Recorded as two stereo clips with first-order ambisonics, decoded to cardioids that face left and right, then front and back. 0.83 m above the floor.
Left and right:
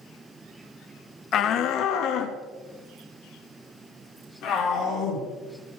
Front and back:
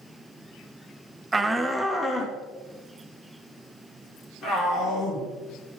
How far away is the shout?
About 0.6 m.